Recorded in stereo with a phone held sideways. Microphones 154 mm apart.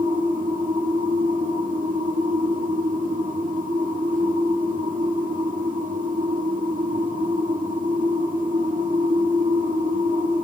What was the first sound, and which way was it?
A machine running, 70° right (ahead or behind).